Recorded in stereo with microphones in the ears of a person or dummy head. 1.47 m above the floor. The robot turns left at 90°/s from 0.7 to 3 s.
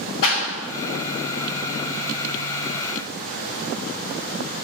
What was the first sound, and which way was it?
A clap, 80° left.